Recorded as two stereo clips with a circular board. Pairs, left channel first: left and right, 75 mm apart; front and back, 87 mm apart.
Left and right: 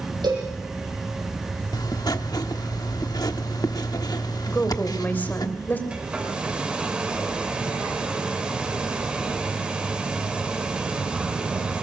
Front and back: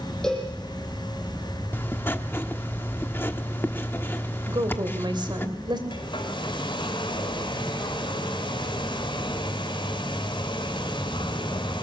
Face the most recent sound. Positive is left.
turn(degrees=-15)